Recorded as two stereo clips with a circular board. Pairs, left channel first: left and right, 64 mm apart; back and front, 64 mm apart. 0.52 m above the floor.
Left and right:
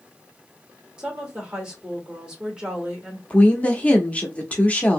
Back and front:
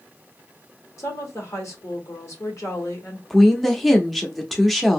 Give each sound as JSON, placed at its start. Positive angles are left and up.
{"t": 1.0, "sound": "a woman speaking", "azimuth_deg": -165, "distance_m": 1.5}
{"t": 3.3, "sound": "a woman speaking", "azimuth_deg": 90, "distance_m": 0.6}